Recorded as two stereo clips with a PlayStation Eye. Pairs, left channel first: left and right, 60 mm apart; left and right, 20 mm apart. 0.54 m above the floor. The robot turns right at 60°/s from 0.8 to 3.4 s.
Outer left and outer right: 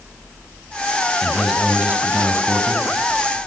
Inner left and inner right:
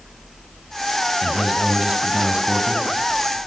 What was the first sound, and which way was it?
A man speaking, 170° left.